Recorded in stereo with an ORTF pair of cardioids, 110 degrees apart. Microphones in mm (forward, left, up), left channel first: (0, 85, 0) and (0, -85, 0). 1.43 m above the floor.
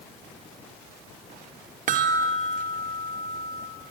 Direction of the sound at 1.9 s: 50° right.